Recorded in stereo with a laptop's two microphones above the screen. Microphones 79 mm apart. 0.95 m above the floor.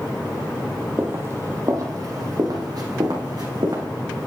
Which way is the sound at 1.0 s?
25° right (ahead or behind).